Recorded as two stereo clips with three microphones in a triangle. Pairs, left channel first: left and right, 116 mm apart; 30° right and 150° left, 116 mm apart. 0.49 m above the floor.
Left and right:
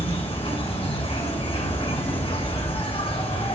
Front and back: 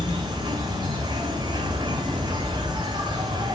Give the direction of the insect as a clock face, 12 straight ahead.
8 o'clock.